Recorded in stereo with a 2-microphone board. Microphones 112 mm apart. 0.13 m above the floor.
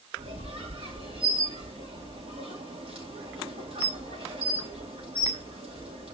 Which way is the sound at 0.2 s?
60° right (ahead or behind).